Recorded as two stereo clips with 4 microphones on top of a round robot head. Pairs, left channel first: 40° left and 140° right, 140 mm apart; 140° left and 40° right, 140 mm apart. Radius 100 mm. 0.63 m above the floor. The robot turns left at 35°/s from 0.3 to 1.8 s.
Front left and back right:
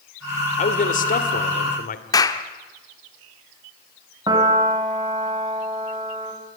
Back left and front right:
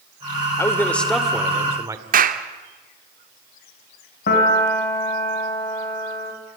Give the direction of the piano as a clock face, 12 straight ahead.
7 o'clock.